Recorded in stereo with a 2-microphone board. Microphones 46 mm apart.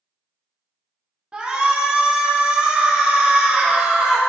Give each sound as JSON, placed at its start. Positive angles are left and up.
{"t": 1.3, "sound": "a shout", "side_deg": -20, "distance_m": 1.1}